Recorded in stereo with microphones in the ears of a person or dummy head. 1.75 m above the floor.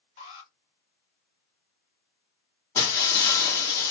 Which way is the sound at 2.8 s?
15° left (ahead or behind).